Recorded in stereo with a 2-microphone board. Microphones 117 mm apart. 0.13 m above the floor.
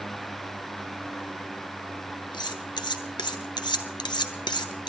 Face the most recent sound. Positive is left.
turn(degrees=40)  # may be behind; listen again after turning